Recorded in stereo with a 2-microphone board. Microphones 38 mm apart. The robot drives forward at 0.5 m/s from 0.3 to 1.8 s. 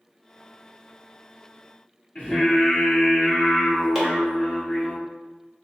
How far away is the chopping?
About 1.2 m.